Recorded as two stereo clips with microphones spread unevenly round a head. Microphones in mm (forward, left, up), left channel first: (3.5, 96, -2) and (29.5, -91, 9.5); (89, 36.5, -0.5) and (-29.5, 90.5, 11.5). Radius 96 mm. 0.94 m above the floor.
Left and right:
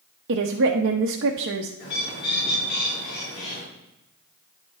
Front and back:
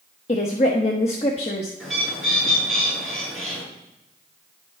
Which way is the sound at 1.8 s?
65° left.